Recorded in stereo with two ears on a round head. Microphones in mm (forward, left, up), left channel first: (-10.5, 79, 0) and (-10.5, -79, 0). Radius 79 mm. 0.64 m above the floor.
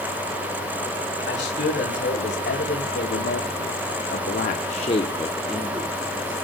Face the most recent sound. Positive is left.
turn(degrees=-20)  # may be behind; listen again after turning